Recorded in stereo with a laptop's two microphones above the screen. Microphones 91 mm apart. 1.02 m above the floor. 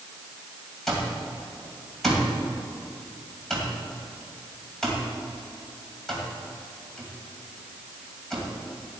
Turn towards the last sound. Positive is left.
turn(degrees=5)  # may be behind; listen again after turning